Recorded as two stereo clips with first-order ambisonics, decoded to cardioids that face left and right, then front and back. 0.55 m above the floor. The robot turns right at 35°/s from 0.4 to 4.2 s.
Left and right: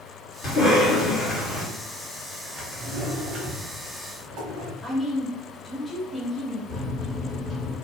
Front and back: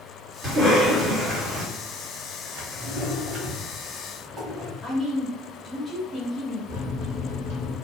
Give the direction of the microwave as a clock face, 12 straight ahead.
12 o'clock.